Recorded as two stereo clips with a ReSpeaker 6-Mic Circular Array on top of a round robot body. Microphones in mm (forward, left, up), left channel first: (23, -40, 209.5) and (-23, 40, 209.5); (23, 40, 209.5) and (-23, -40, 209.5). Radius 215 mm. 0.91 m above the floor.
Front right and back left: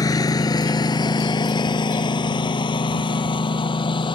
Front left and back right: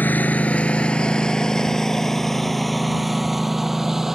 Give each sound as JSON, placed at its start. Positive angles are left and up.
{"t": 0.0, "sound": "a lawn mower", "azimuth_deg": -10}